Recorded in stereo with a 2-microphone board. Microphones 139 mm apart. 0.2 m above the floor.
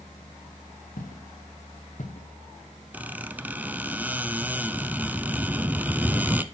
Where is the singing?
No singing in this recording.